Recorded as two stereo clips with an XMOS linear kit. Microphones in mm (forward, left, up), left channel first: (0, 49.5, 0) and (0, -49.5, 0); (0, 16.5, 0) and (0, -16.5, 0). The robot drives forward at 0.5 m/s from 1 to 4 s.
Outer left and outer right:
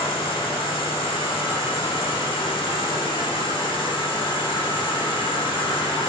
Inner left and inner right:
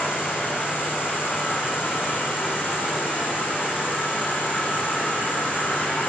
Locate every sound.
0.0 s an insect: 80° left, 4 m; by 6.1 s 70° left (ahead or behind), 4 m